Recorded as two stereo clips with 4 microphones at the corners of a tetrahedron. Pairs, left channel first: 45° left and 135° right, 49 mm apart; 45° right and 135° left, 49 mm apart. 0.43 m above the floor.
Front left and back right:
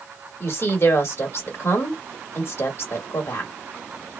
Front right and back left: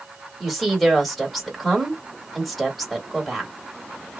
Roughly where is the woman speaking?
Ahead left.